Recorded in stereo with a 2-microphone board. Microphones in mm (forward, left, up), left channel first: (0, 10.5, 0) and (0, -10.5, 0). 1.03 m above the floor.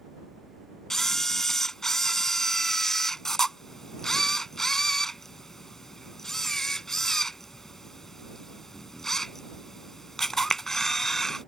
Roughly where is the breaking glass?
No breaking glass in this recording.